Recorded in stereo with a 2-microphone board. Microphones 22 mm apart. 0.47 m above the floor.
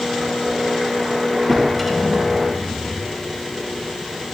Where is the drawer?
Centre (ahead or behind), 4 m.